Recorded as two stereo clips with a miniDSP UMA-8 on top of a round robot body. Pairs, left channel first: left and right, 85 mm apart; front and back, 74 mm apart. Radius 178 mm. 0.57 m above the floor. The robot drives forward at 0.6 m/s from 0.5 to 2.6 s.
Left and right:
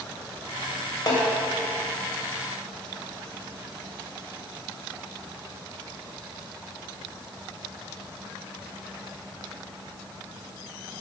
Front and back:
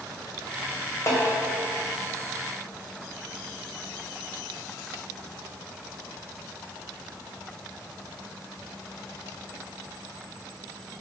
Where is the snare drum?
50° left, 2.5 m.